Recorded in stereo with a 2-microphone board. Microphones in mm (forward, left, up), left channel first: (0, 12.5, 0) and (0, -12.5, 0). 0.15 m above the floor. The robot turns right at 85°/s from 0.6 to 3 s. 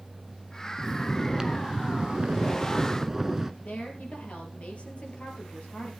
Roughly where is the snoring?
Behind left.